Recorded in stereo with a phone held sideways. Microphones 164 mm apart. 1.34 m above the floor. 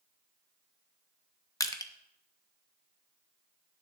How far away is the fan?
No fan in this recording.